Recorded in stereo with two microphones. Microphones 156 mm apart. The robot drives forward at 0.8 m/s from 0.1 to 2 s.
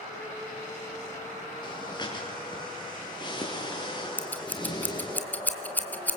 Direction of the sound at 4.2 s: 10° left (ahead or behind).